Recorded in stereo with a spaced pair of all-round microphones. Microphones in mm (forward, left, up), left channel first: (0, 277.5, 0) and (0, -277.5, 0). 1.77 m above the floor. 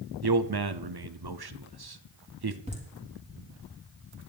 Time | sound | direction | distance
0.2 | a man speaking | 45° right (ahead or behind) | 0.7 m
2.7 | laughter | 10° right (ahead or behind) | 4 m